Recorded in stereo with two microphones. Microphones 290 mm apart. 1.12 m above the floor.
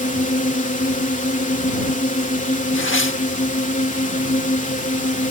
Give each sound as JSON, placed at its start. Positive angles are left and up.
{"t": 0.0, "sound": "a drone", "side_deg": 25}
{"t": 2.7, "sound": "tearing paper", "side_deg": 45}